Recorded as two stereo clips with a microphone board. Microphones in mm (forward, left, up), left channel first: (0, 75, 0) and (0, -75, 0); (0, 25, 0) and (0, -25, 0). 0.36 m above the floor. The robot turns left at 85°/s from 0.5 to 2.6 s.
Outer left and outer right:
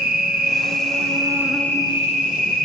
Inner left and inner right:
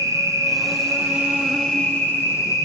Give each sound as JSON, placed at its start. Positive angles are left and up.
{"t": 0.0, "sound": "an insect", "azimuth_deg": -90, "distance_m": 1.8}